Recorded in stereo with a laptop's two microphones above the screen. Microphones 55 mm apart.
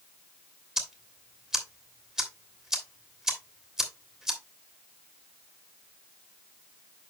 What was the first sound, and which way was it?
Ticking, 10° right (ahead or behind).